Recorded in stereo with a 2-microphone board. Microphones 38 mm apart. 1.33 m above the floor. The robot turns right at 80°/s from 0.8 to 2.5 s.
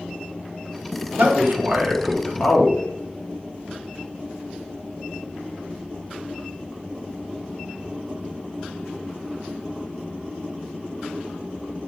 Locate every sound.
1.2 s a man speaking: 75° right, 0.7 m; by 2.8 s 30° left, 0.7 m